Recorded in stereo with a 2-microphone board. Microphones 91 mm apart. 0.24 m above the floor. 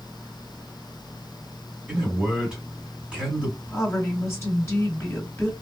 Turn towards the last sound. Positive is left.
turn(degrees=25)  # may be behind; listen again after turning